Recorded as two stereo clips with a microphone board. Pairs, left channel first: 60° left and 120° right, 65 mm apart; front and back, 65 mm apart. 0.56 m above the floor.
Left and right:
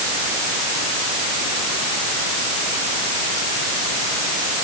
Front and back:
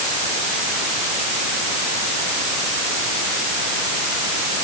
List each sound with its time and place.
Only background noise.